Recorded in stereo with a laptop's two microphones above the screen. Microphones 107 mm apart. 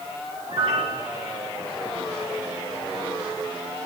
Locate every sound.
0.5 s a piano: 70° right (ahead or behind), 3 m